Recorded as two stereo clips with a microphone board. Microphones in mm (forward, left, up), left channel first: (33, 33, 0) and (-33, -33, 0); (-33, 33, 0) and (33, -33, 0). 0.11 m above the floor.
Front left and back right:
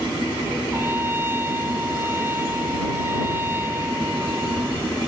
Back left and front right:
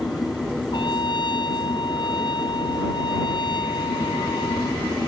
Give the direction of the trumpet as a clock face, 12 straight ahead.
7 o'clock.